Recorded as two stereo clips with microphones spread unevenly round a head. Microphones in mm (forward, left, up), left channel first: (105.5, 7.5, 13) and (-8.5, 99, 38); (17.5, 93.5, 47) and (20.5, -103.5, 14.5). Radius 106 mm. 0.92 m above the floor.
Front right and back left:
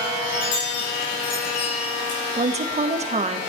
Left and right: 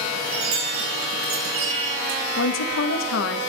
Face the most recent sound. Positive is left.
turn(degrees=100)